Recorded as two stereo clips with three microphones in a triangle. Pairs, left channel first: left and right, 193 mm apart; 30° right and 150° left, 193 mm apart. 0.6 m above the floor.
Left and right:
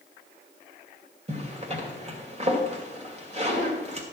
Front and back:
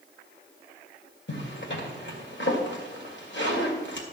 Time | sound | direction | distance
1.3 | a zipper | 35° right | 2.5 m